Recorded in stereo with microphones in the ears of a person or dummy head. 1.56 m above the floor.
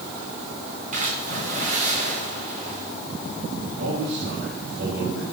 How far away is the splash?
About 3 m.